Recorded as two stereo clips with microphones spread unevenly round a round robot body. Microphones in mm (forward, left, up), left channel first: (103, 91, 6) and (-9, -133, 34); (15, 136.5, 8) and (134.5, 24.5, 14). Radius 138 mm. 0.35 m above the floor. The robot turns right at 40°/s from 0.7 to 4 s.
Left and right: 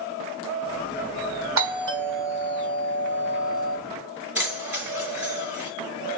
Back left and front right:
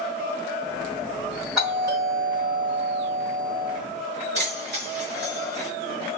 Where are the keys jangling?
30° right, 4.5 m.